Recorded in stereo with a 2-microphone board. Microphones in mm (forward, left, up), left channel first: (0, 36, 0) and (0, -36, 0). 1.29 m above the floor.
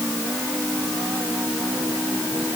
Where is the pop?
No pop in this recording.